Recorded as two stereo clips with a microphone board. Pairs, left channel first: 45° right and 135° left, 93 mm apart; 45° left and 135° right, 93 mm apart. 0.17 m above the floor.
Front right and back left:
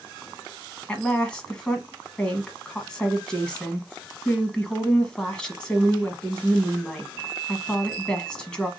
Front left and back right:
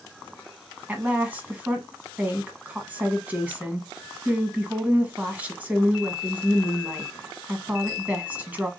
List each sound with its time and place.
0.9 s a woman speaking: 105° right, 1.1 m